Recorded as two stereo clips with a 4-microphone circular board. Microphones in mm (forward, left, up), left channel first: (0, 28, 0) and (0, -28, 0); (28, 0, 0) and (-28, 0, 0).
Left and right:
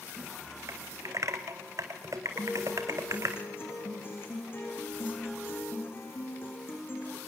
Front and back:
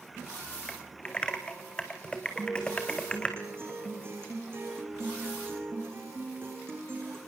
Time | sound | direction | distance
0.7 | typing on a keyboard | 70° right | 2.5 m
2.4 | a guitar | 135° left | 8 m